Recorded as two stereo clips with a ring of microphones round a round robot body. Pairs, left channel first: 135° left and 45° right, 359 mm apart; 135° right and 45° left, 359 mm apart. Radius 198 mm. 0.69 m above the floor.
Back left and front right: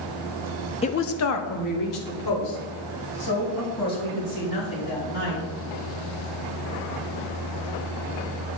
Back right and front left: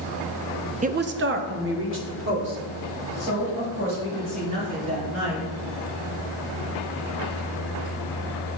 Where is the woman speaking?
85° left, 0.5 m; by 5.5 s 105° left, 6 m.